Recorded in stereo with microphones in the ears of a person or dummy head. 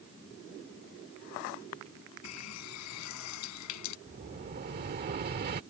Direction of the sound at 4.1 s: 45° right (ahead or behind).